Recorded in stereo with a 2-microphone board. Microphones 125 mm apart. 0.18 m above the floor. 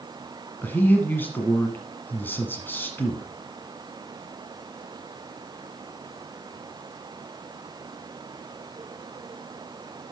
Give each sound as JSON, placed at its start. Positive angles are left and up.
{"t": 0.6, "sound": "a man speaking", "side_deg": 15, "distance_m": 1.5}